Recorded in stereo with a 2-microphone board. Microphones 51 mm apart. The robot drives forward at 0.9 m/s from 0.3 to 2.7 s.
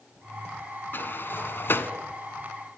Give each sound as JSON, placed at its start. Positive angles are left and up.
{"t": 0.9, "sound": "a sliding door", "side_deg": 40, "distance_m": 1.5}